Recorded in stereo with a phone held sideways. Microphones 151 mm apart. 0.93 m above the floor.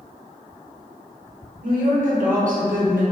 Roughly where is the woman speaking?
Right.